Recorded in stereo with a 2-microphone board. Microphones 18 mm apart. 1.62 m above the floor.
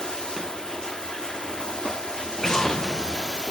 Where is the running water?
45° left (ahead or behind), 1.4 m.